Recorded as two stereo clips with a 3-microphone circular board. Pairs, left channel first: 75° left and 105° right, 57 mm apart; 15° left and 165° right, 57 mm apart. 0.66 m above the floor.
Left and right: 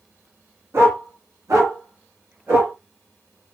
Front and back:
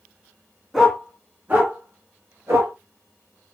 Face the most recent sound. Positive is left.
turn(degrees=-130)